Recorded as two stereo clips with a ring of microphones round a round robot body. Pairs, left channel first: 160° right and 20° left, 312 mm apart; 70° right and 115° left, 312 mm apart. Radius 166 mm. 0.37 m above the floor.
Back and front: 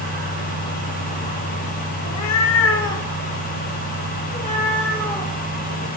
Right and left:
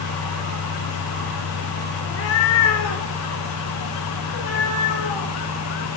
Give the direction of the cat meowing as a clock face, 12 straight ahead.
4 o'clock.